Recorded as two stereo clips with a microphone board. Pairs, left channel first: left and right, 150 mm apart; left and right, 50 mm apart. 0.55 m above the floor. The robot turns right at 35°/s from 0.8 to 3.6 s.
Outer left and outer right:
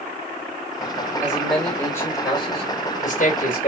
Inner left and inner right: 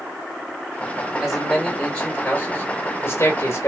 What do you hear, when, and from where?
1.2 s a man speaking: 10° right, 2.5 m; by 3.7 s 75° left, 2.5 m